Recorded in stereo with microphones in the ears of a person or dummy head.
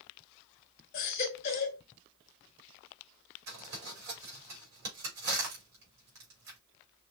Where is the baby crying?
45° left (ahead or behind), 1.1 m.